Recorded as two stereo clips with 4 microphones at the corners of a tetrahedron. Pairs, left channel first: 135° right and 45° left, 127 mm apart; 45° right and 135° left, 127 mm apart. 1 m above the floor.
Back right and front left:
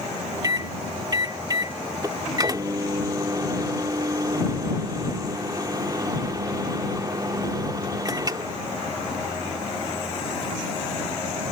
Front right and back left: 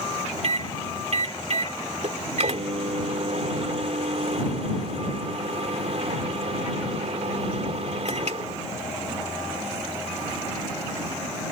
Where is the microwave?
105° left.